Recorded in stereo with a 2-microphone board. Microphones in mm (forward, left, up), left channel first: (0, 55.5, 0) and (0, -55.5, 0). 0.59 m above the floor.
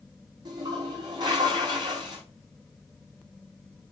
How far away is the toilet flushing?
About 4.5 m.